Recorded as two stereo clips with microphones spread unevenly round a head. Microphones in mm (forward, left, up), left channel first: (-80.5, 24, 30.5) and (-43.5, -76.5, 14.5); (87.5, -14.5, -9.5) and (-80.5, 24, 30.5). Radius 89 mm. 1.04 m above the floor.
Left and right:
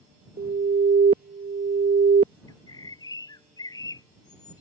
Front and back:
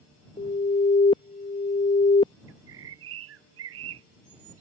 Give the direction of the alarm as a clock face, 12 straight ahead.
2 o'clock.